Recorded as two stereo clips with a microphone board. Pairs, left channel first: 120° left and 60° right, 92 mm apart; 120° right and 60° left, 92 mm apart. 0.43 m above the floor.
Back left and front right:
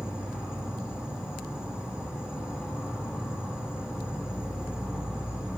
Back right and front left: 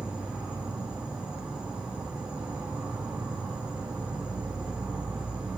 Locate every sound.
0.0 s an insect: straight ahead, 2 m